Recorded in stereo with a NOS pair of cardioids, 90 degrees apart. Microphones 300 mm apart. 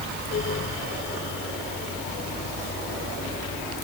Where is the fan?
40° left.